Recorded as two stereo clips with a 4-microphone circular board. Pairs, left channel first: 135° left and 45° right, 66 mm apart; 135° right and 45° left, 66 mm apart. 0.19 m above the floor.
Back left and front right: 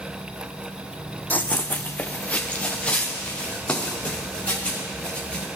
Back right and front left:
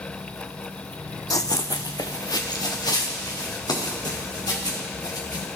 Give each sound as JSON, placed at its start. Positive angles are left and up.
{"t": 1.3, "sound": "running footsteps", "azimuth_deg": -160, "distance_m": 0.5}